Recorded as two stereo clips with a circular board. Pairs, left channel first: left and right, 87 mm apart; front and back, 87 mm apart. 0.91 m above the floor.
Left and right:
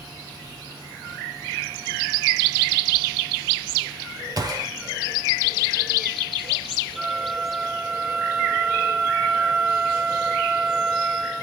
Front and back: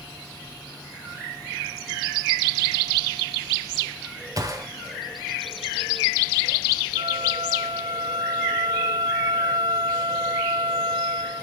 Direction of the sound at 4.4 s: 135° right.